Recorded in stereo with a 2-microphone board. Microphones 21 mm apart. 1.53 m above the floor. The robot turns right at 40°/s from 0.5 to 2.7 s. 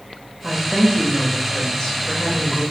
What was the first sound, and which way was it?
A woman speaking, straight ahead.